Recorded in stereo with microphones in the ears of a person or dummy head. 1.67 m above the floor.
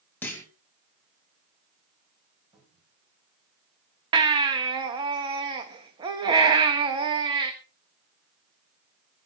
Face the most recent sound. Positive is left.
turn(degrees=-25)  # may be behind; listen again after turning